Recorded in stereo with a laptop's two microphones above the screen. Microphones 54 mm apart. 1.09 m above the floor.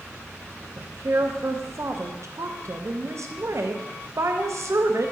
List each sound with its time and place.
0.8 s a woman speaking: 60° right (ahead or behind), 0.6 m